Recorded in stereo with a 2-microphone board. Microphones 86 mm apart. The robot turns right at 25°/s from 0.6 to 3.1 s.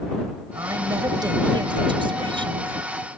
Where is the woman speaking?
140° right; by 2.8 s 85° right.